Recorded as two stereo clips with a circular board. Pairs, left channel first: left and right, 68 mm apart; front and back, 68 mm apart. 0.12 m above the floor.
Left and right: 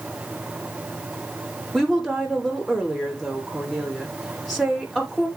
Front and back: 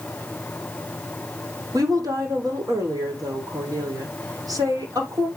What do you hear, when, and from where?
1.7 s a woman speaking: 175° left, 6 m